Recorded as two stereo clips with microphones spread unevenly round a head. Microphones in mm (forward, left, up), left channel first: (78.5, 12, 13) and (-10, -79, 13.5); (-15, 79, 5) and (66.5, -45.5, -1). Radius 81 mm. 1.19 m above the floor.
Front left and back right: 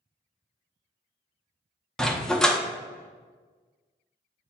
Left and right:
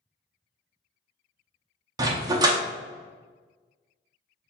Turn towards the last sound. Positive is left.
turn(degrees=-35)